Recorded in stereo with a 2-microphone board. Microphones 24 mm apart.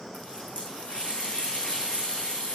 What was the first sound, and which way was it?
A running tap, 75° left (ahead or behind).